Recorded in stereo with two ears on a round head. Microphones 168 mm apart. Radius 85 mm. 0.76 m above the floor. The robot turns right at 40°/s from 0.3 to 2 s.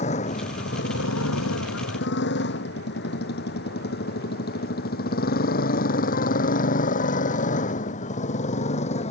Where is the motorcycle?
35° left (ahead or behind); by 9.1 s 40° left (ahead or behind).